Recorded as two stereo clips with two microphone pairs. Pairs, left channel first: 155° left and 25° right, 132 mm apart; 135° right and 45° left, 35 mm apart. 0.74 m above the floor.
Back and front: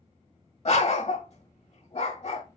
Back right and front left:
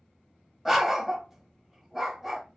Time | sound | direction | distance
0.7 | a dog barking | 130° left | 0.8 m